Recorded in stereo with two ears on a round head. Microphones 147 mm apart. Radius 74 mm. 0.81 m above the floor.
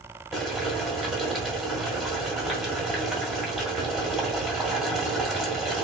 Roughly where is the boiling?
Centre.